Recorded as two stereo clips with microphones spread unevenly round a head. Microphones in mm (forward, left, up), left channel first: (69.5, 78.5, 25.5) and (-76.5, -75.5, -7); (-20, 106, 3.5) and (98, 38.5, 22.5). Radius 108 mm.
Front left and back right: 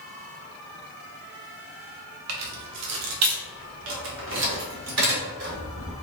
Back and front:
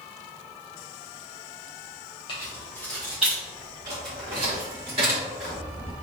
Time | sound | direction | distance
2.3 | keys jangling | 140° right | 0.8 m